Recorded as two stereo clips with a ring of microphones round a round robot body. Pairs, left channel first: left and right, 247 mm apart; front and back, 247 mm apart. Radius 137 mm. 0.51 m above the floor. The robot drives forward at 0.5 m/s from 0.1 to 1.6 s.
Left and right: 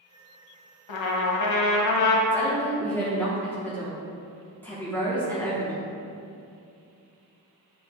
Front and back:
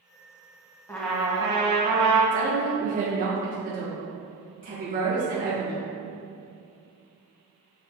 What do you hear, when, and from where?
0.9 s a trumpet: 80° left, 0.8 m; by 2.2 s 110° left, 0.8 m
2.3 s a woman speaking: 165° left, 1.3 m